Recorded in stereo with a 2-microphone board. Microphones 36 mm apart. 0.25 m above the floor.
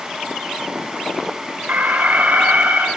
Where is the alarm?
45° right (ahead or behind), 3 m.